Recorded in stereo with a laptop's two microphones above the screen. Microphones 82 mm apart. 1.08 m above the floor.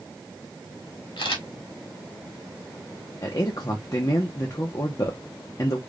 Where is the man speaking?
45° left (ahead or behind), 0.7 m.